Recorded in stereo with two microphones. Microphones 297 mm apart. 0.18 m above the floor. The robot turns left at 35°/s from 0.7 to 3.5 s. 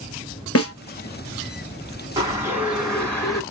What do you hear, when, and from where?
0.6 s a snare drum: 50° left (ahead or behind), 0.8 m
2.2 s a bird: 155° right, 1.9 m; by 3.4 s 160° left, 1.9 m